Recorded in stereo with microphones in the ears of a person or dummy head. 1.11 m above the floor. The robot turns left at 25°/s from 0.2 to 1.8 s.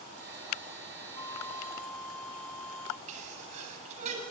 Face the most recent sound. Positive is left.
turn(degrees=-40)  # may be behind; listen again after turning